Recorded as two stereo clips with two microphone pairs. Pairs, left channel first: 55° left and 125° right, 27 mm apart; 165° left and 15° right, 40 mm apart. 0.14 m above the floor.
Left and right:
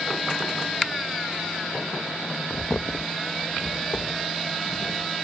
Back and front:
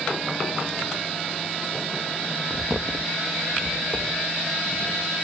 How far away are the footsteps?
About 0.6 m.